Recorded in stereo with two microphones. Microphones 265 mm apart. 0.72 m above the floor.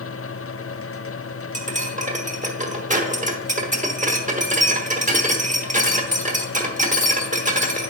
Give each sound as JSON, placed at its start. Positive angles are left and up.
{"t": 1.5, "sound": "cutlery clinking", "side_deg": -30, "distance_m": 1.1}